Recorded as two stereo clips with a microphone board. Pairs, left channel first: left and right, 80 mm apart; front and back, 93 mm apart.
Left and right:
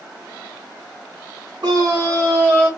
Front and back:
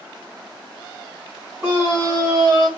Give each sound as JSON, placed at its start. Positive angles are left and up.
{"t": 1.6, "sound": "a scream", "azimuth_deg": -115, "distance_m": 1.3}